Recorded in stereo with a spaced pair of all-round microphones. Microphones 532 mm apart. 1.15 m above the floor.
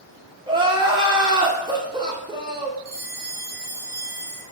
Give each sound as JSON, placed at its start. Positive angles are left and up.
{"t": 0.5, "sound": "crying", "side_deg": -10, "distance_m": 0.5}
{"t": 2.9, "sound": "a bell", "side_deg": 55, "distance_m": 1.6}